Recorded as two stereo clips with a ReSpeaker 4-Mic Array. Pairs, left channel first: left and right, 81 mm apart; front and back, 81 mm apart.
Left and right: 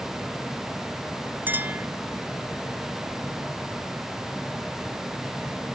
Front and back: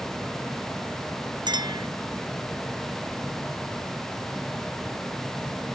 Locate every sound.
1.5 s a clink: 155° right